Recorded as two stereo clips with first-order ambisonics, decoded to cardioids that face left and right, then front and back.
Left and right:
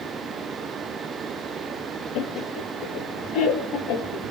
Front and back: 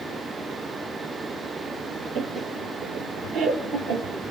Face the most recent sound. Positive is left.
turn(degrees=130)